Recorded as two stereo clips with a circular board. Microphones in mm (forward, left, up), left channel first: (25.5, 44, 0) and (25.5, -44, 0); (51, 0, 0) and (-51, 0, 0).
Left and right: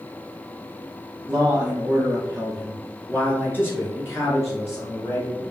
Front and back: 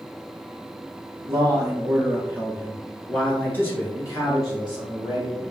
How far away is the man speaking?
About 1.5 m.